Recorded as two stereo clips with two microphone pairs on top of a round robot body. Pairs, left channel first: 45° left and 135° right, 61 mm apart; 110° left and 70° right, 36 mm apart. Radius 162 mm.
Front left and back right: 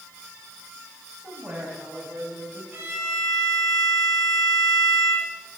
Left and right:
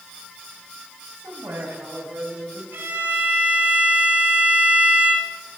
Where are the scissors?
No scissors in this recording.